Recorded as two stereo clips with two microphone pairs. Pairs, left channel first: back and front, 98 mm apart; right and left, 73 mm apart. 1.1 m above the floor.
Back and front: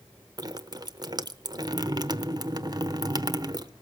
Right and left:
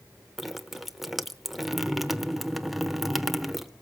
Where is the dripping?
5° left, 0.9 m.